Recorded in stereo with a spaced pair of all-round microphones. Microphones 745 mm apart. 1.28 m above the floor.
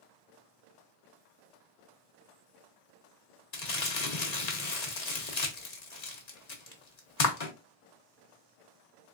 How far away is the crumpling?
About 1.0 m.